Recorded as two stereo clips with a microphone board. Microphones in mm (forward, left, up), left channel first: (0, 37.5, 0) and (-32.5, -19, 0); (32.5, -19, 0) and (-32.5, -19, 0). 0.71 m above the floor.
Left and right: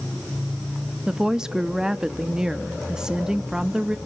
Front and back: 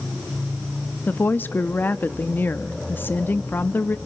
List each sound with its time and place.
1.1 s a woman speaking: 45° right, 0.8 m